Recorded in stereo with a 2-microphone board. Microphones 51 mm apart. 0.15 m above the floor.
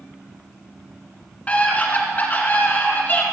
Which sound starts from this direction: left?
A scream, at 1.5 s.